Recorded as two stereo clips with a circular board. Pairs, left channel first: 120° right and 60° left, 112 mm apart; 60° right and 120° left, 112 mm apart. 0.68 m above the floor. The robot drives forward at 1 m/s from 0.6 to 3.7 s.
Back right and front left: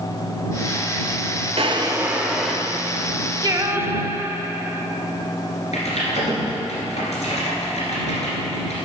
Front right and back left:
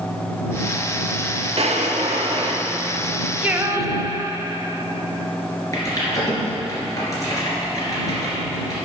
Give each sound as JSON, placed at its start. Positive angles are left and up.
{"t": 1.6, "sound": "a drawer", "azimuth_deg": 90, "distance_m": 0.6}
{"t": 3.4, "sound": "singing", "azimuth_deg": 50, "distance_m": 0.5}
{"t": 5.7, "sound": "typing on a keyboard", "azimuth_deg": -120, "distance_m": 2.5}